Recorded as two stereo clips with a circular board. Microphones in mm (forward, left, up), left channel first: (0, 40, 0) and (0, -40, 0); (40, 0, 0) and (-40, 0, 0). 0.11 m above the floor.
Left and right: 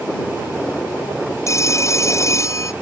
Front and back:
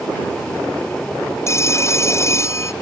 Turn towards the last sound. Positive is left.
turn(degrees=45)